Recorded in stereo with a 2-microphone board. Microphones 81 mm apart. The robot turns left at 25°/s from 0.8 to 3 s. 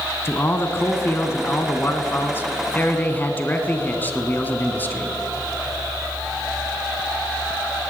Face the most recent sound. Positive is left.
turn(degrees=50)